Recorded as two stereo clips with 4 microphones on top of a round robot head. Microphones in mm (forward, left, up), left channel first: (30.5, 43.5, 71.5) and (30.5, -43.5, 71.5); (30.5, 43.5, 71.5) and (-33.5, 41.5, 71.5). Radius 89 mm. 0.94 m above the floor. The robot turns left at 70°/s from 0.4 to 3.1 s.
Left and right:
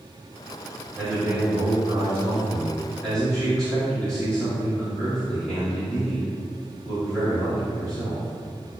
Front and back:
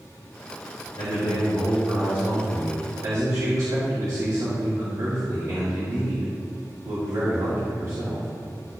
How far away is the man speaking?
About 2.5 m.